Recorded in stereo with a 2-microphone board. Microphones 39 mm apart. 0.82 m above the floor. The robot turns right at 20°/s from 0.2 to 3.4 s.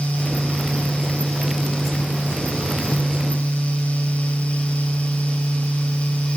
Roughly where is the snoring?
I don't hear snoring.